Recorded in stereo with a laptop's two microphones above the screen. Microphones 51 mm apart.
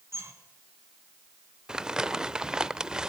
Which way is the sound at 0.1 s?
65° right (ahead or behind).